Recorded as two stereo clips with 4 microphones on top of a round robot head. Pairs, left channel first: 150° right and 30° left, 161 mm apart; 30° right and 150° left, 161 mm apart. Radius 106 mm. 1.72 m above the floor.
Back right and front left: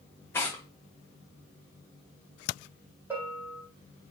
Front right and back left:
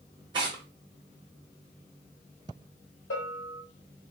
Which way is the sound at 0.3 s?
155° left.